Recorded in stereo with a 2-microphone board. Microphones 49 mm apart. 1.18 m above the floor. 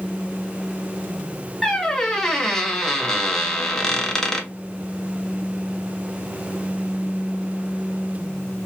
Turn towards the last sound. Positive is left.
turn(degrees=10)  # may be behind; listen again after turning